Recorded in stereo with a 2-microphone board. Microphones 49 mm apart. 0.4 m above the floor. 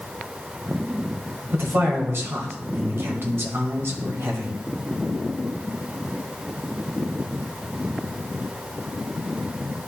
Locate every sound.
1.5 s a man speaking: 55° right (ahead or behind), 1.8 m